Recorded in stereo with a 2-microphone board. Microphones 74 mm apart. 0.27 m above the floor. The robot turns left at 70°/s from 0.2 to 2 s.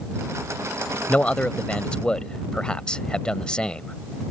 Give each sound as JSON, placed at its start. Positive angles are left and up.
{"t": 1.1, "sound": "a man speaking", "side_deg": 20}